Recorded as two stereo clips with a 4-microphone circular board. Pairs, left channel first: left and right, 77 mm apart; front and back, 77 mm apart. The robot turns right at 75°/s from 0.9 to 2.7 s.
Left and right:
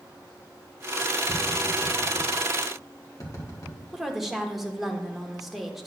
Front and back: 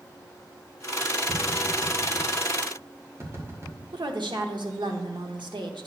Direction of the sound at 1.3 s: 25° left.